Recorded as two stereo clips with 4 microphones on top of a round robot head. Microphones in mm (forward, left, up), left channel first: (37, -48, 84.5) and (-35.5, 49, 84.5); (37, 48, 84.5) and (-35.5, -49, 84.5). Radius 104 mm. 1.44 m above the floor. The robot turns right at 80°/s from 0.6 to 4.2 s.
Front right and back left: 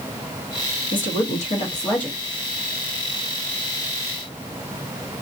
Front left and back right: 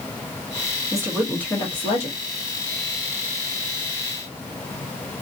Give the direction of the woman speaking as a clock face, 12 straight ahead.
2 o'clock.